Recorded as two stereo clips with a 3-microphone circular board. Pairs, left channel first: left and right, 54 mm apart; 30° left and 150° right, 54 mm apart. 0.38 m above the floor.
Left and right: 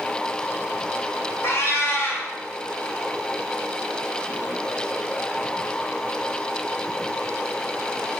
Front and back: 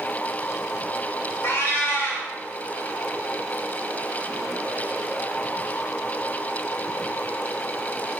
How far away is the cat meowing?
About 0.6 m.